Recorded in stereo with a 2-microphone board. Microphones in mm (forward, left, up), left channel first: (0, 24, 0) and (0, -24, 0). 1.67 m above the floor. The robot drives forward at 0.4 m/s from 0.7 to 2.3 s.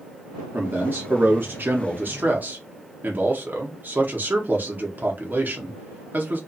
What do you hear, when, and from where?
0.5 s a man speaking: 45° right (ahead or behind), 0.7 m; by 6.4 s 40° right (ahead or behind), 0.8 m